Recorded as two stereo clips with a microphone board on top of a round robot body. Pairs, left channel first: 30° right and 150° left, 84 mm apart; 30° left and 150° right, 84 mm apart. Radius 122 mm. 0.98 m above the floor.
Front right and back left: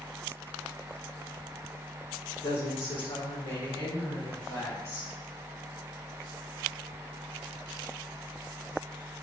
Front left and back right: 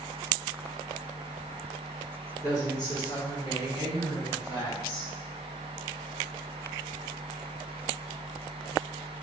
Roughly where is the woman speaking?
Ahead.